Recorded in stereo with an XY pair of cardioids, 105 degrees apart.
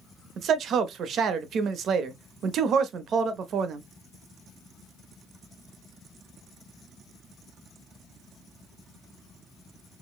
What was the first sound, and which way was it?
A man speaking, 65° right.